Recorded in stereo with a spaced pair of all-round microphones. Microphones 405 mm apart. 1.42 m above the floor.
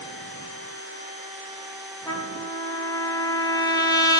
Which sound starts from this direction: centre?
A trumpet, at 2.1 s.